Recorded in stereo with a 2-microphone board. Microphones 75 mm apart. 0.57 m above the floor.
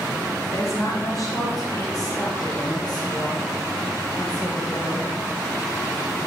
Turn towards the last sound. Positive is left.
turn(degrees=75)  # may be behind; listen again after turning